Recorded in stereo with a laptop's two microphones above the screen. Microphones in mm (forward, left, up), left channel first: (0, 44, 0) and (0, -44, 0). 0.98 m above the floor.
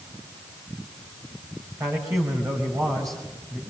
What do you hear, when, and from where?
1.8 s a man speaking: 40° right (ahead or behind), 5 m